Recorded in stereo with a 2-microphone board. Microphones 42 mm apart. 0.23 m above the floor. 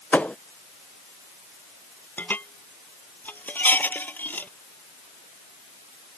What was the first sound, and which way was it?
A thud, 35° left (ahead or behind).